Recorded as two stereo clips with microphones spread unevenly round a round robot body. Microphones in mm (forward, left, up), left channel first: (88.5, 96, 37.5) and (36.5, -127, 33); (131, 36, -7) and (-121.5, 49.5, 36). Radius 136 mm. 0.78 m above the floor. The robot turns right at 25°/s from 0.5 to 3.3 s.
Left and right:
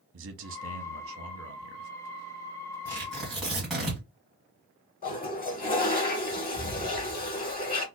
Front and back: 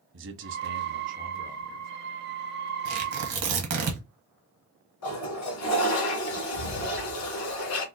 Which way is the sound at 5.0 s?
25° left.